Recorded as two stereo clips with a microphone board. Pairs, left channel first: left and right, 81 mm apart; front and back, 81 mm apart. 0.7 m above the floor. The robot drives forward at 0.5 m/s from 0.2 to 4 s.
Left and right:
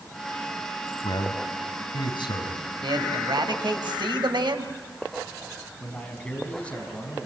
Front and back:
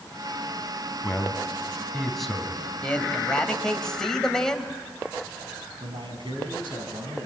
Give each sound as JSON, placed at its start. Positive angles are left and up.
{"t": 1.0, "sound": "a man speaking", "azimuth_deg": 80, "distance_m": 4.5}
{"t": 2.8, "sound": "a man speaking", "azimuth_deg": -75, "distance_m": 3.5}
{"t": 5.8, "sound": "a man speaking", "azimuth_deg": 165, "distance_m": 5.0}